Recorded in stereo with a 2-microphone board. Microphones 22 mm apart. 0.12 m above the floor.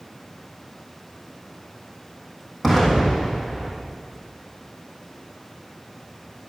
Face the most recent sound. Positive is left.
turn(degrees=0)  # may be behind; listen again after turning